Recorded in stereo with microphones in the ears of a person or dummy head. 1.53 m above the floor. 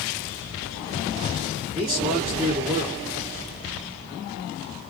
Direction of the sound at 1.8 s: 15° right (ahead or behind).